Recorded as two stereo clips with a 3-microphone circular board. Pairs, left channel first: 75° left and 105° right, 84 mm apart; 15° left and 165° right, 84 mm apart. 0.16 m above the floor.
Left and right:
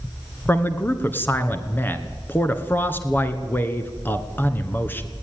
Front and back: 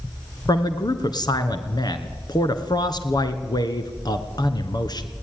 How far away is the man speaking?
About 2 m.